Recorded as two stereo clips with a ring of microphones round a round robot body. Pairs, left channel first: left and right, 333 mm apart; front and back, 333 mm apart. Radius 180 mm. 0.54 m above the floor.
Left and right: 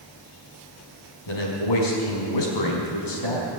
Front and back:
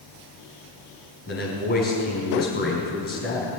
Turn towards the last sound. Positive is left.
turn(degrees=65)